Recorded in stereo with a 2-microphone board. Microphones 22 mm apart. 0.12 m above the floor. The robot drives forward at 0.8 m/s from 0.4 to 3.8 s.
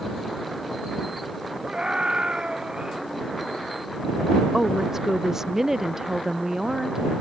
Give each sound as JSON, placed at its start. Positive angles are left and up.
{"t": 1.6, "sound": "a scream", "side_deg": -45}
{"t": 4.5, "sound": "a woman speaking", "side_deg": -20}